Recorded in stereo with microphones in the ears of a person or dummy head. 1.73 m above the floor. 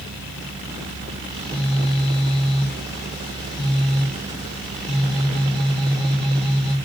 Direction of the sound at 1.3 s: 5° left (ahead or behind).